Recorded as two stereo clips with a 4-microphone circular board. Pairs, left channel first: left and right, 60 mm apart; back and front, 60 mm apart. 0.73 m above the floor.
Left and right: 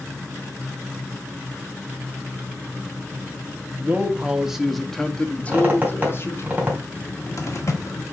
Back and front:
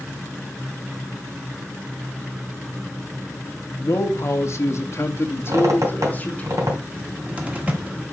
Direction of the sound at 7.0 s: 65° left.